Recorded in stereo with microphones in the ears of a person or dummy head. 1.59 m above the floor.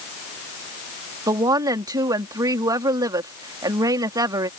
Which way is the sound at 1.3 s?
20° right (ahead or behind).